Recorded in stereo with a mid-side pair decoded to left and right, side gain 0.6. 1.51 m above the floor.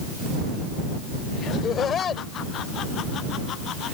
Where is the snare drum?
No snare drum in this recording.